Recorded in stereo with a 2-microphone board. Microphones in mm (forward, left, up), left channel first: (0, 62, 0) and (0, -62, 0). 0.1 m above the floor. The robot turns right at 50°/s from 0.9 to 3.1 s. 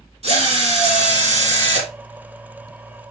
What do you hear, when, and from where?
0.2 s a drill: 115° right, 1.9 m; by 1.9 s 65° right, 1.9 m